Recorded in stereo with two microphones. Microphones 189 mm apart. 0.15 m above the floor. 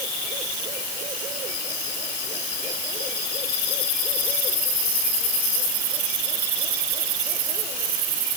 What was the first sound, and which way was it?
Only background noise.